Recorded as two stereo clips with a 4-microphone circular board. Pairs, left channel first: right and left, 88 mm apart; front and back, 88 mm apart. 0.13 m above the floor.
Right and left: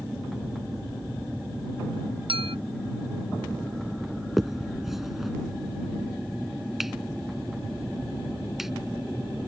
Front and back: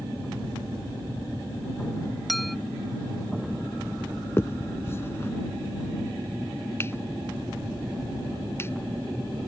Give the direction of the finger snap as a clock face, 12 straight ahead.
12 o'clock.